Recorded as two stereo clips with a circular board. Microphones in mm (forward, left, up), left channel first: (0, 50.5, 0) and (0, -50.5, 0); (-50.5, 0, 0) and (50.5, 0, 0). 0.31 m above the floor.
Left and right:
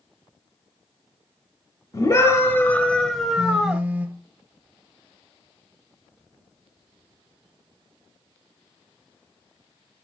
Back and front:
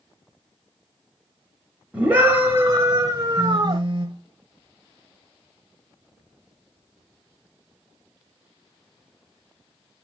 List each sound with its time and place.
1.9 s a scream: 70° left, 1.2 m; by 3.8 s 20° right, 1.3 m
3.4 s a phone buzzing: 25° right, 1.1 m